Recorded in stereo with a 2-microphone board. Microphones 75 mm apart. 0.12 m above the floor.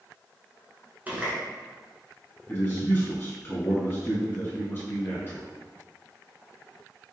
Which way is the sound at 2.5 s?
30° left (ahead or behind).